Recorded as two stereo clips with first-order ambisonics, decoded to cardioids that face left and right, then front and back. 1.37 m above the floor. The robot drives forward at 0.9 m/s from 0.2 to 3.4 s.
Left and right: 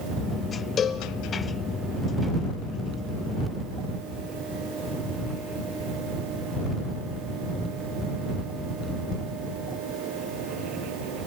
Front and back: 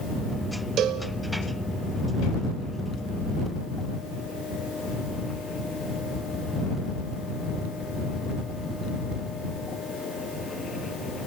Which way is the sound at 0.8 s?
145° left.